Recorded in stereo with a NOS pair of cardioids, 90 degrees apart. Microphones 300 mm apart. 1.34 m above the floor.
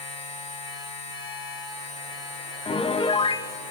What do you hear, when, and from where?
0.0 s a machine running: 50° left, 4.5 m
2.6 s a piano: 20° left, 0.6 m